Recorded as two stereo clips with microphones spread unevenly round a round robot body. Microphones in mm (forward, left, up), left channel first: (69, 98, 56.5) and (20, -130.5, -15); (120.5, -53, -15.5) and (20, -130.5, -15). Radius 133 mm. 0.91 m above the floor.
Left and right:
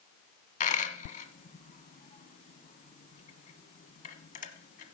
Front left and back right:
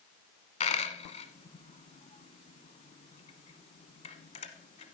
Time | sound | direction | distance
0.6 | a dropped coin | 50° left | 1.1 m